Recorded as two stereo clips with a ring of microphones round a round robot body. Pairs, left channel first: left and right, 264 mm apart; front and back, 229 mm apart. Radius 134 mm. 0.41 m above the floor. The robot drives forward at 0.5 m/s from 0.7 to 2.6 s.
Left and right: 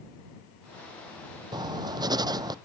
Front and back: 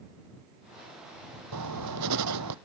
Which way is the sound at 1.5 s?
165° right.